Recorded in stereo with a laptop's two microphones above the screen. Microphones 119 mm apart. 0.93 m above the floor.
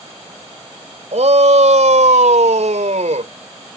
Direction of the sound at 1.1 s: 75° right (ahead or behind).